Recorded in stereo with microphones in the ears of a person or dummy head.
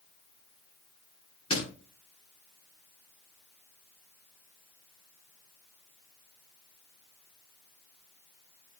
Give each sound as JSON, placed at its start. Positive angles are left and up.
{"t": 1.5, "sound": "a door slam", "side_deg": 30, "distance_m": 9.0}